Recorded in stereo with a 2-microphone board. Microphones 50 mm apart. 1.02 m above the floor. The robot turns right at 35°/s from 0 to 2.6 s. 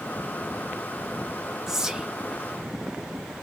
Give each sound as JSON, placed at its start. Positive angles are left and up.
{"t": 1.7, "sound": "whispering", "side_deg": -10, "distance_m": 0.6}